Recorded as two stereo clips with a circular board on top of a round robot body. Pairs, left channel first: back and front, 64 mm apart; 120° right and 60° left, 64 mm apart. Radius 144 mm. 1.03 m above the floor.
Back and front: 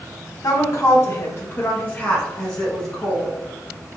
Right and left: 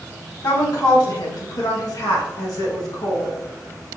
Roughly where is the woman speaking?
Behind right.